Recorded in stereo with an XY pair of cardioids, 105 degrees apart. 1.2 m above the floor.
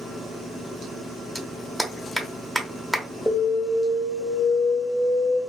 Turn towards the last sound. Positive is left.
turn(degrees=10)